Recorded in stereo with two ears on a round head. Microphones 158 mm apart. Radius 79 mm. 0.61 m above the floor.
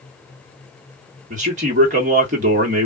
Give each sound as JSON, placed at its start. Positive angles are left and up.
{"t": 1.3, "sound": "a man speaking", "side_deg": -40, "distance_m": 1.5}